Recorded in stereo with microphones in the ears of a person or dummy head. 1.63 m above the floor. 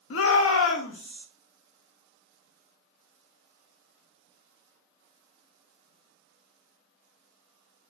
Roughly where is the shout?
Left.